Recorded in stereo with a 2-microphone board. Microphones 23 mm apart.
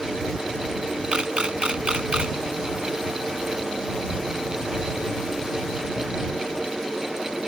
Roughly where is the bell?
I don't hear a bell.